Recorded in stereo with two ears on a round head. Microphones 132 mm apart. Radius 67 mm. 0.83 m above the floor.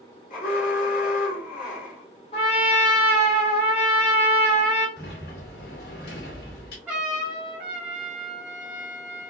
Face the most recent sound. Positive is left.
turn(degrees=-10)  # may be behind; listen again after turning